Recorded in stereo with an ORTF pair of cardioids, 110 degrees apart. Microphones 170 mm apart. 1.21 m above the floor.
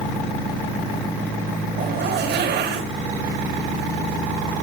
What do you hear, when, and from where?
1.7 s a zipper: 65° right, 8.5 m